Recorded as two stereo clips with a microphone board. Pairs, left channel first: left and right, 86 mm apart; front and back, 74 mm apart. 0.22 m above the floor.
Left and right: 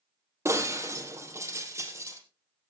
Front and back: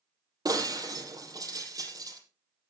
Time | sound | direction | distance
0.5 | breaking glass | 145° right | 4 m